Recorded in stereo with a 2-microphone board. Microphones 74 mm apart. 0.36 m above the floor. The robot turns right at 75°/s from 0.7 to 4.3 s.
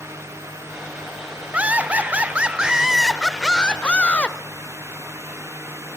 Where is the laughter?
15° right (ahead or behind), 0.8 m; by 4.4 s 20° left (ahead or behind), 0.8 m.